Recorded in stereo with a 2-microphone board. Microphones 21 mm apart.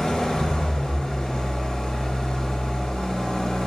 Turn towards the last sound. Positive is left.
turn(degrees=50)  # may be behind; listen again after turning